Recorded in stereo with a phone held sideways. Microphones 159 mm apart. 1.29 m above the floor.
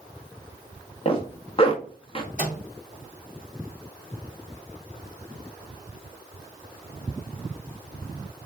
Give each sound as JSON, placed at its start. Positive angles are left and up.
{"t": 1.1, "sound": "a zipper", "side_deg": 35, "distance_m": 0.6}
{"t": 2.4, "sound": "a microwave", "side_deg": 55, "distance_m": 0.7}